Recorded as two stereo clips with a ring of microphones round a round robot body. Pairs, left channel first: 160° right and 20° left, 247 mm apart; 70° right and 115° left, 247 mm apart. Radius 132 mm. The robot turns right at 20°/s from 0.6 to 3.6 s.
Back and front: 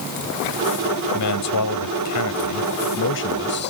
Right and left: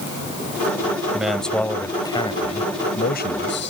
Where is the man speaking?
160° right; by 3.7 s 110° right.